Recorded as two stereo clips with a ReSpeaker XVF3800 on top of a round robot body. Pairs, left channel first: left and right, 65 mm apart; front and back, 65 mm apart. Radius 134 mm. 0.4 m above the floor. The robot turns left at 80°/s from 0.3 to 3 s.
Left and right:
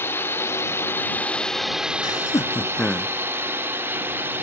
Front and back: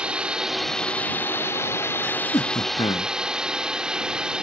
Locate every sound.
0.0 s a drone: 115° left; by 4.4 s 110° right
2.0 s laughter: 75° left; by 3.1 s straight ahead